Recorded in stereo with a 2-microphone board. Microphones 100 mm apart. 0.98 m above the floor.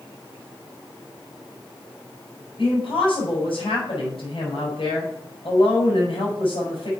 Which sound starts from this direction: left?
A woman speaking, at 2.6 s.